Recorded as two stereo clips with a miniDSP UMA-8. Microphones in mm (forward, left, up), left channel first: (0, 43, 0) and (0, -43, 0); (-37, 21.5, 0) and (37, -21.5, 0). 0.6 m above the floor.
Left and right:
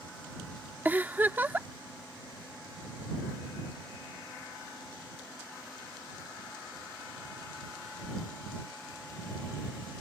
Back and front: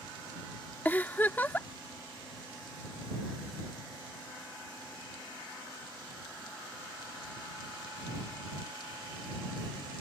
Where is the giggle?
150° right.